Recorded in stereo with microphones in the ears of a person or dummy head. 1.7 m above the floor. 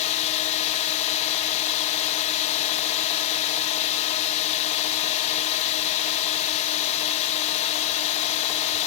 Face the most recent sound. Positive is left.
turn(degrees=35)  # may be behind; listen again after turning